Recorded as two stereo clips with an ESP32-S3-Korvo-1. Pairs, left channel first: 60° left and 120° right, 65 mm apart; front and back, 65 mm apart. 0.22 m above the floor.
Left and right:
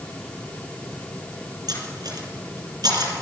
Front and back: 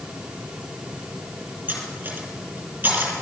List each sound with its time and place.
1.7 s cutlery clinking: 115° right, 3 m